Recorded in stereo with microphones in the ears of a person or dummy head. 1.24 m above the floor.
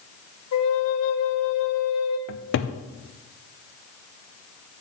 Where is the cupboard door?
55° left (ahead or behind), 0.5 m.